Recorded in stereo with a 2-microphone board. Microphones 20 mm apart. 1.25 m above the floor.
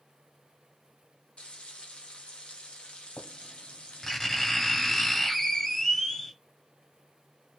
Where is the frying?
60° left (ahead or behind), 1.0 m.